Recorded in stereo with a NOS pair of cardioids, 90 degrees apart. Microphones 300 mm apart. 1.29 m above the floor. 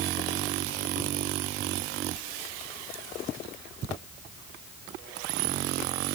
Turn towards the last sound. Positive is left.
No sound to turn to.